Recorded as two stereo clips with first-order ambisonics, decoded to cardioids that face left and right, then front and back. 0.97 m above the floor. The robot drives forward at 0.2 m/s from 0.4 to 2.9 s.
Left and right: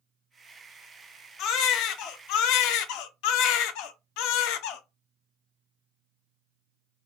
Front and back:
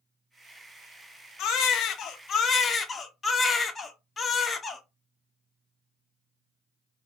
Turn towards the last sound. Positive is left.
turn(degrees=75)